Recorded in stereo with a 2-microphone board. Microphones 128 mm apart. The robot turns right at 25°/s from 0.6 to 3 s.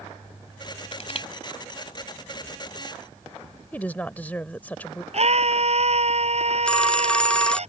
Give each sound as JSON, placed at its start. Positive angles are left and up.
{"t": 0.9, "sound": "crushing", "side_deg": 55}
{"t": 3.7, "sound": "a woman speaking", "side_deg": 15}
{"t": 5.1, "sound": "a scream", "side_deg": -55}
{"t": 6.7, "sound": "a phone ringing", "side_deg": 10}